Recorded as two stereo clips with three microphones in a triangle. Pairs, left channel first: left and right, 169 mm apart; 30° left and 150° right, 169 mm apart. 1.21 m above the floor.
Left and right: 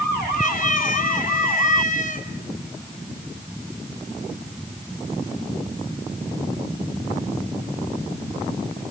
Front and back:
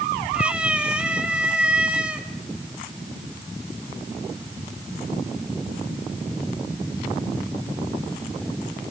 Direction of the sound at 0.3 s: 125° left.